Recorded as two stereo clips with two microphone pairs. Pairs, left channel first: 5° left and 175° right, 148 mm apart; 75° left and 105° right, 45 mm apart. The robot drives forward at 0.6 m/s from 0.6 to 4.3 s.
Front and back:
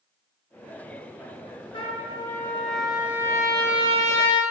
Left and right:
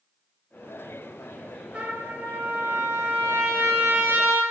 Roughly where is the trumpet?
Ahead right.